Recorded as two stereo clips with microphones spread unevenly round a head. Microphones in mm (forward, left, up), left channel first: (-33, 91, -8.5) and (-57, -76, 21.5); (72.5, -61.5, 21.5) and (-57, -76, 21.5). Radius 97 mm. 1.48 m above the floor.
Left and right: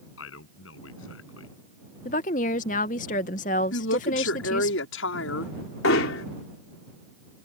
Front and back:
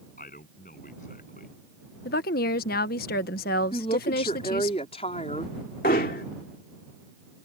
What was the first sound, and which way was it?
A man speaking, 60° left.